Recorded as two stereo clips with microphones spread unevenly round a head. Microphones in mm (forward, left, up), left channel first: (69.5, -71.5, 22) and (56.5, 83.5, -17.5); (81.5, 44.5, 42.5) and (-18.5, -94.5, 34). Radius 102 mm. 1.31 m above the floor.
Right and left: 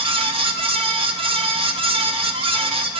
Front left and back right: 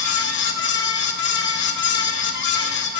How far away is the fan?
About 1.0 m.